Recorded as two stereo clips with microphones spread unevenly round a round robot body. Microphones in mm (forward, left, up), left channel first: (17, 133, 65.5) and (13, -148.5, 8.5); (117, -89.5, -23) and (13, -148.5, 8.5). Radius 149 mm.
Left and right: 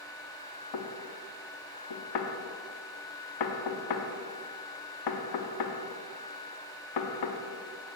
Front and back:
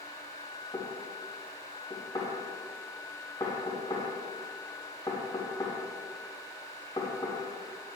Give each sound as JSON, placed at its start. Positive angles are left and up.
{"t": 0.7, "sound": "knocking", "azimuth_deg": 105, "distance_m": 1.1}